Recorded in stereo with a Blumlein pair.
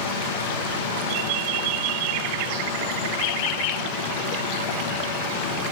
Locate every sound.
0.0 s a machine running: 55° left, 0.9 m